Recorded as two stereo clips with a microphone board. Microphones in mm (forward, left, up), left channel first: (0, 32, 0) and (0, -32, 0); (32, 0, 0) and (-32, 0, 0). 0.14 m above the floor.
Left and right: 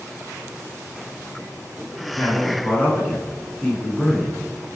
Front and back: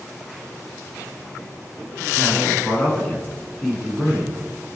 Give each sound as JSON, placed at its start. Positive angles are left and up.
{"t": 2.1, "sound": "a man speaking", "azimuth_deg": 40, "distance_m": 1.5}